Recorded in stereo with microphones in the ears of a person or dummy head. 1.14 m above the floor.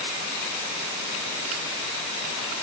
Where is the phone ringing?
No phone ringing in this recording.